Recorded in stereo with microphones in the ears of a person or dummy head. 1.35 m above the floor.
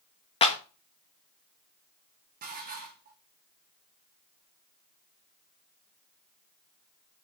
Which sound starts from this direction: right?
Dishes clattering, at 2.4 s.